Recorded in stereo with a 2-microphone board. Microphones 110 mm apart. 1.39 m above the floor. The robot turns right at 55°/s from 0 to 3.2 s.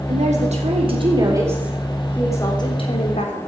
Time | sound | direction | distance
0.1 | a woman speaking | 100° right | 4 m